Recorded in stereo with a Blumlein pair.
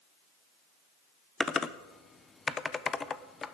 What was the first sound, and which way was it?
Typing on a keyboard, 15° left.